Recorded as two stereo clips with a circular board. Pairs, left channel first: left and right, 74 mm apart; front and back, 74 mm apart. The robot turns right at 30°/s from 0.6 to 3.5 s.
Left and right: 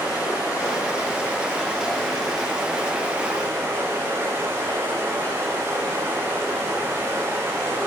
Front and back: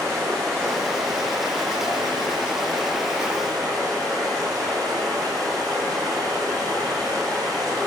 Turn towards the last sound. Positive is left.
turn(degrees=-140)